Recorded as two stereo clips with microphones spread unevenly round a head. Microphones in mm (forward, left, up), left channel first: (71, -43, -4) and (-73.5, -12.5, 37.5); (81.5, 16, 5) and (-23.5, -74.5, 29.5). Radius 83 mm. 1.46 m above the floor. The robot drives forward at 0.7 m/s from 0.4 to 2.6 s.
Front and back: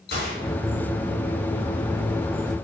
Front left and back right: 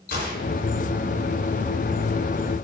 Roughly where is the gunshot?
Ahead left.